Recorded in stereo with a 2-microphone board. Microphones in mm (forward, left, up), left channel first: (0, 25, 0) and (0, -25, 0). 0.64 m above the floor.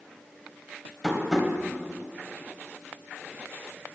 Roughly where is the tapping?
Centre.